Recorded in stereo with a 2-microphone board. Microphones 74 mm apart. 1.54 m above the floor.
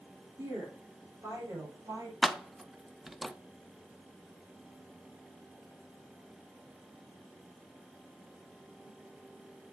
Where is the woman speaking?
50° right (ahead or behind), 4.5 m.